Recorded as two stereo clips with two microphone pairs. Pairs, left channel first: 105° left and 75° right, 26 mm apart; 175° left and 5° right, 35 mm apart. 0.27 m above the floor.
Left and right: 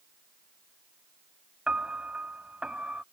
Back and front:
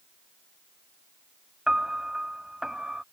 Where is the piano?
70° right.